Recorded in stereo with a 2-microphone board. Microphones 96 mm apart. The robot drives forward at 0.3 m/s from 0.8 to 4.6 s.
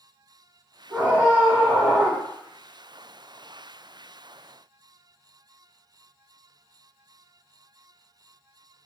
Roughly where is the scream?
Right.